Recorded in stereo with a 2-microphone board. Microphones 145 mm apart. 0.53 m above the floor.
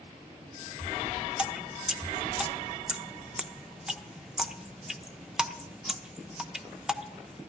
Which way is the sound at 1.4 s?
5° right (ahead or behind).